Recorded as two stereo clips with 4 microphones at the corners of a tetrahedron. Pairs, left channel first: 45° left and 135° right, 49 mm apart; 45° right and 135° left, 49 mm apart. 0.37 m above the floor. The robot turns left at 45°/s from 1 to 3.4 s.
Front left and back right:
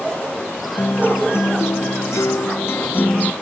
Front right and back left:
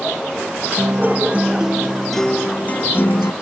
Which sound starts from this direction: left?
A guitar, at 0.8 s.